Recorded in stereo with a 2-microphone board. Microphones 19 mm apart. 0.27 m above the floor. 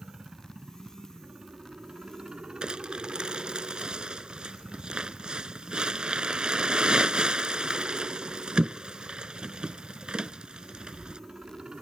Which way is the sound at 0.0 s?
50° right (ahead or behind).